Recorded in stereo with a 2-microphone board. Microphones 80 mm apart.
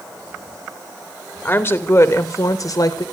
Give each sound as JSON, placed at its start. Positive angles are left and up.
{"t": 1.4, "sound": "a woman speaking", "side_deg": 25, "distance_m": 2.5}